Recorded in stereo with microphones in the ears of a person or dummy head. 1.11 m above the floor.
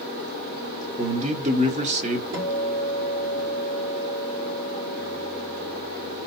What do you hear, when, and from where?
1.0 s a man speaking: 40° right (ahead or behind), 0.8 m
2.3 s a guitar: 60° right (ahead or behind), 1.4 m